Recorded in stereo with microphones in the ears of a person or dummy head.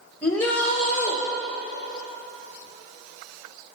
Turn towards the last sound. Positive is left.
turn(degrees=10)  # may be behind; listen again after turning